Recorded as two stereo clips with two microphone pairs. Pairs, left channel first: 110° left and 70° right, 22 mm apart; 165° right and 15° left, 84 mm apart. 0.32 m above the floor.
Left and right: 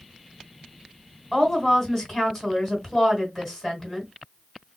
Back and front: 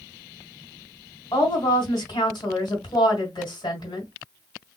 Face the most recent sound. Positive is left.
turn(degrees=-165)